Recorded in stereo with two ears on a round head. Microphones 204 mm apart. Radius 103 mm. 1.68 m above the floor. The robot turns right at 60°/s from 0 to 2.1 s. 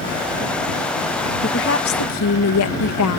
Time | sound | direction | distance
1.4 | a woman speaking | 35° left | ?